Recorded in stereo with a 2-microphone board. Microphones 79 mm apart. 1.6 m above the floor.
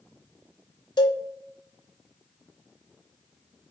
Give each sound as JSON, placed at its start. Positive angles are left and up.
{"t": 1.0, "sound": "a cowbell", "side_deg": 85, "distance_m": 0.6}